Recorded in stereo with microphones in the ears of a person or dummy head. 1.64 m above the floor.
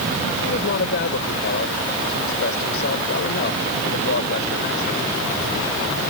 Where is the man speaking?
65° left (ahead or behind).